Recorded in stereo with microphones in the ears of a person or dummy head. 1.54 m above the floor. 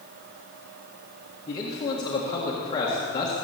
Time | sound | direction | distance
1.5 | a man speaking | 25° left (ahead or behind) | 1.7 m